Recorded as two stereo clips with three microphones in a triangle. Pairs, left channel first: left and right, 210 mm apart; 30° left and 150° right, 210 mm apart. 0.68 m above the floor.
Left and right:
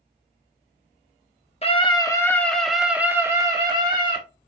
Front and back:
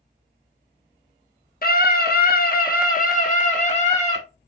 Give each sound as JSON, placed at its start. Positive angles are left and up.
{"t": 1.6, "sound": "a scream", "azimuth_deg": 45, "distance_m": 1.2}